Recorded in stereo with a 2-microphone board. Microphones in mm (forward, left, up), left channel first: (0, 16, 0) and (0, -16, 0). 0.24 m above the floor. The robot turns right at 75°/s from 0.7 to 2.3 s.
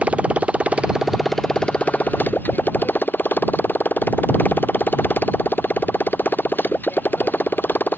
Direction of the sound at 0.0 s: 45° right.